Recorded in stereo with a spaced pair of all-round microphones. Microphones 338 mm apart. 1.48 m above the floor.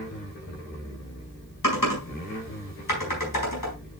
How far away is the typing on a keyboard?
About 4 m.